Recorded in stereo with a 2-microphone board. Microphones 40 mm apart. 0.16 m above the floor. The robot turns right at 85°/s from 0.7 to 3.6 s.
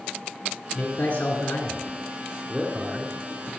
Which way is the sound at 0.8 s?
20° left (ahead or behind).